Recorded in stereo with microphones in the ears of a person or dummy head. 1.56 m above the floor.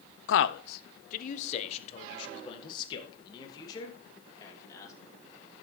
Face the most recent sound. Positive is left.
turn(degrees=20)  # may be behind; listen again after turning